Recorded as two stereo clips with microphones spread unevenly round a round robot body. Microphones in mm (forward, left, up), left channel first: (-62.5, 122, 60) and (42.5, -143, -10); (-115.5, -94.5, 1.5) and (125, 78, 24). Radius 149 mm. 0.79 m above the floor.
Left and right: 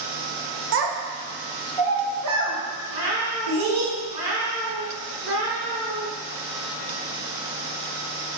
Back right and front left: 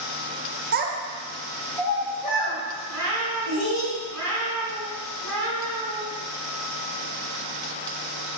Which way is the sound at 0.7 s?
25° right.